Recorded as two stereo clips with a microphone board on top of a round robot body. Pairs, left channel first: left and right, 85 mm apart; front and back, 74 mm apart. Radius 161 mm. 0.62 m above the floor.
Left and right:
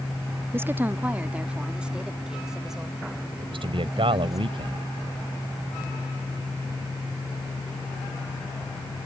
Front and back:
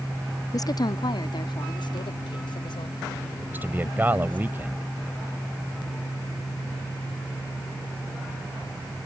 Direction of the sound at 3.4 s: 115° right.